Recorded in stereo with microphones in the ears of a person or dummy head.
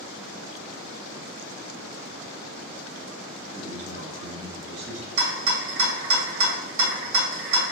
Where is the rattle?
70° right (ahead or behind), 1.7 m.